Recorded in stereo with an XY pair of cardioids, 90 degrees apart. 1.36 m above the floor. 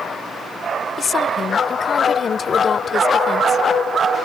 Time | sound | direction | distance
1.0 | a woman speaking | 45° left | ?